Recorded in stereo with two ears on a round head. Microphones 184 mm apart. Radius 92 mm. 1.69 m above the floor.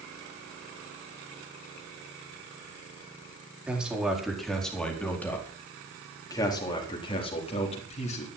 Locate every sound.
3.7 s a man speaking: 5° right (ahead or behind), 4.5 m; by 8.3 s 35° left (ahead or behind), 4.5 m